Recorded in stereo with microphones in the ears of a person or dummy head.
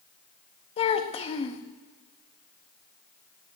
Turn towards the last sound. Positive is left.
turn(degrees=40)  # may be behind; listen again after turning